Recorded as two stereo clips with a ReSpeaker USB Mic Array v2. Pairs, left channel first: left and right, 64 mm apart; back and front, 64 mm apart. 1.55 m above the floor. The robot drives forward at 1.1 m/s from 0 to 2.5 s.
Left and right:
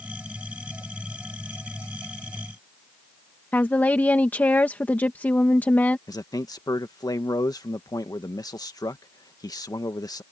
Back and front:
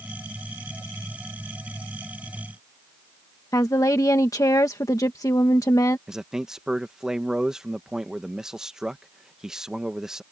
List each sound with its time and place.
3.5 s a woman speaking: 155° left
6.1 s a man speaking: 80° left